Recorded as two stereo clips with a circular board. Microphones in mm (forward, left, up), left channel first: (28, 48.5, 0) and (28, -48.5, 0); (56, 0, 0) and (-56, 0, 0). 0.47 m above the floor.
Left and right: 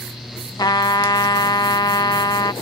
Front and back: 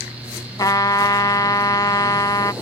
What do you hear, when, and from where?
0.6 s a trumpet: 50° left